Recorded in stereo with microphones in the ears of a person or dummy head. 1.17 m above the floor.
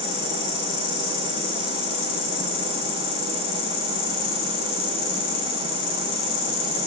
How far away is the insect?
About 3.5 m.